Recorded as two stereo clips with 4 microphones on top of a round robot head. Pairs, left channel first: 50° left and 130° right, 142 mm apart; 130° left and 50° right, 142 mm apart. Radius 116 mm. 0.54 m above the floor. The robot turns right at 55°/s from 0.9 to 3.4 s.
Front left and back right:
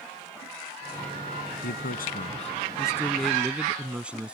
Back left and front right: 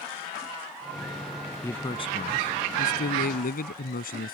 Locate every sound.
1.6 s a man speaking: 50° left; by 4.3 s 150° left